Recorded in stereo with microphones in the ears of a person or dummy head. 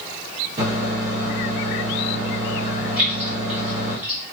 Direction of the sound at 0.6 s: 35° right (ahead or behind).